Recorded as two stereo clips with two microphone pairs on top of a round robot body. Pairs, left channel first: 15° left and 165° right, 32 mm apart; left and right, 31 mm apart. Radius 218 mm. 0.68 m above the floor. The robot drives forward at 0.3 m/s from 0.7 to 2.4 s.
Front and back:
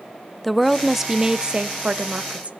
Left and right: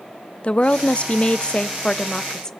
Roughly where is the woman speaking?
Left.